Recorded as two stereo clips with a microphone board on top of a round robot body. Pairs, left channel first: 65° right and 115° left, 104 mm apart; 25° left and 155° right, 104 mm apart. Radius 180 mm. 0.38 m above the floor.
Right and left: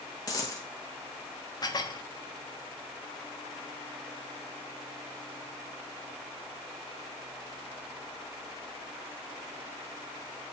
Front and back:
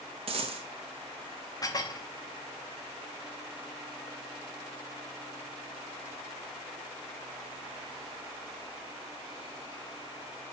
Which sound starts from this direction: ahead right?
Dishes clattering, at 1.6 s.